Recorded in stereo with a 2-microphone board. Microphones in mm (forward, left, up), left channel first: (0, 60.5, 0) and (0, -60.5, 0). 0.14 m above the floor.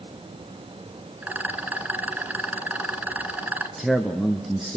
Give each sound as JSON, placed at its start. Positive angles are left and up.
{"t": 1.2, "sound": "a rattle", "side_deg": -15, "distance_m": 1.6}
{"t": 3.8, "sound": "a man speaking", "side_deg": 0, "distance_m": 1.5}